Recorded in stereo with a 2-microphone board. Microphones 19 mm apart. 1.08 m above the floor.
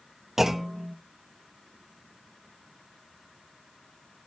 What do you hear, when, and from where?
0.4 s a clunk: 25° right (ahead or behind), 0.9 m